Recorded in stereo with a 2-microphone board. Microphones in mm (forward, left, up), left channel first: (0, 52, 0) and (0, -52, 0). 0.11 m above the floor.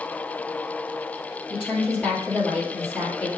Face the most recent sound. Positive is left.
turn(degrees=15)  # may be behind; listen again after turning